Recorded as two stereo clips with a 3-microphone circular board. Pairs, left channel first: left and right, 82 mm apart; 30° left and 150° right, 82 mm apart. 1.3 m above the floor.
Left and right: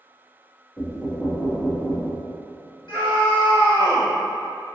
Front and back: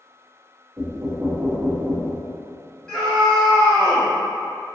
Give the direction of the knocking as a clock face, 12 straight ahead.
7 o'clock.